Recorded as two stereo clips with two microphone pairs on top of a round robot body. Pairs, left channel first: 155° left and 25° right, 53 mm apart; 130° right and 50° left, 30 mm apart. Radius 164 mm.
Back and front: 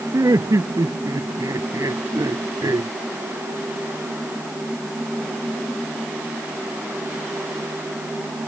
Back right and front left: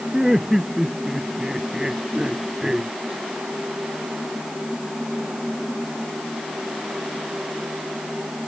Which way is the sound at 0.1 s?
30° right.